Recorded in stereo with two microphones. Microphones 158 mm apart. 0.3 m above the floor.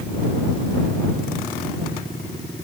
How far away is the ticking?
I don't hear ticking.